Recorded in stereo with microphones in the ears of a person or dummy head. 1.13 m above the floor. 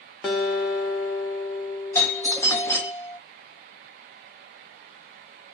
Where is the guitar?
10° left (ahead or behind), 0.7 m.